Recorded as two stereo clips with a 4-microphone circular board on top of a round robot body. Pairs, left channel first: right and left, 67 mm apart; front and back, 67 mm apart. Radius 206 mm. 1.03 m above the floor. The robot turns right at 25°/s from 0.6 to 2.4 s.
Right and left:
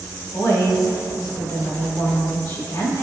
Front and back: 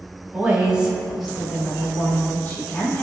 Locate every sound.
0.3 s a woman speaking: 105° right, 2 m; by 3.0 s 60° right, 2 m